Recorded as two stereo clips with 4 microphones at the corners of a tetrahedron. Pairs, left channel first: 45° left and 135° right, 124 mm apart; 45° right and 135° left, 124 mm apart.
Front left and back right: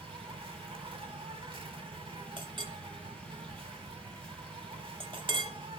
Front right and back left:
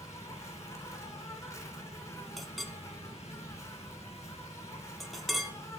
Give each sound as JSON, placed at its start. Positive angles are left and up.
{"t": 0.0, "sound": "an insect", "azimuth_deg": -100, "distance_m": 0.9}
{"t": 2.4, "sound": "a clink", "azimuth_deg": -135, "distance_m": 0.7}